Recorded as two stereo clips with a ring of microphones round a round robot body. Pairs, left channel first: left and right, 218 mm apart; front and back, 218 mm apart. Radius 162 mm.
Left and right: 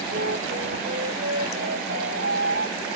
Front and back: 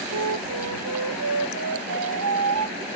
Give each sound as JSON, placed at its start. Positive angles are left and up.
{"t": 0.1, "sound": "a flute", "azimuth_deg": -150}